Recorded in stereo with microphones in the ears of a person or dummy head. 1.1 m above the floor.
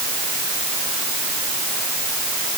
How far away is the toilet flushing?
No toilet flushing in this recording.